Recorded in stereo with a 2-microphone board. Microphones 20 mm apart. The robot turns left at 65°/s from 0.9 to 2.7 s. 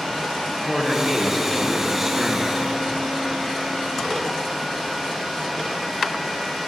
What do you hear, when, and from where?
0.5 s a man speaking: 15° left (ahead or behind), 0.8 m; by 2.5 s 20° right (ahead or behind), 0.8 m